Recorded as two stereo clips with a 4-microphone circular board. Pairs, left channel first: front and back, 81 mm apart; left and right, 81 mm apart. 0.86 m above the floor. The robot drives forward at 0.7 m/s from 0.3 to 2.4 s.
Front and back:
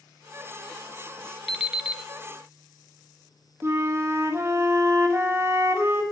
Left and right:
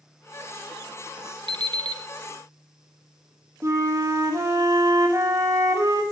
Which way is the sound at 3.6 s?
130° right.